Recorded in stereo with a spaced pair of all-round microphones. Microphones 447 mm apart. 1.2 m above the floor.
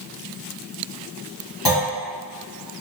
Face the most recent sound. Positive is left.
turn(degrees=60)  # may be behind; listen again after turning